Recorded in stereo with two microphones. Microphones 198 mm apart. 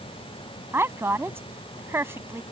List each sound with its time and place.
0.7 s a woman speaking: 10° right (ahead or behind)